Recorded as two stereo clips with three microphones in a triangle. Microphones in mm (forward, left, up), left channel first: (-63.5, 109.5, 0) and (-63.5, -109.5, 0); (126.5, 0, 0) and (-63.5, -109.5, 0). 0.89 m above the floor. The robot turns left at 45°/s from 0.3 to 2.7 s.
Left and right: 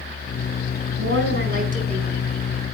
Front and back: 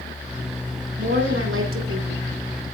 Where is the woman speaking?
110° right, 4.5 m; by 2.2 s 165° right, 4.5 m.